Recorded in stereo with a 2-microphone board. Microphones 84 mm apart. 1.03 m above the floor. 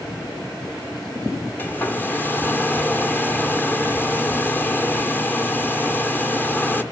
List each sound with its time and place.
1.6 s a hair dryer: 25° left (ahead or behind), 1.3 m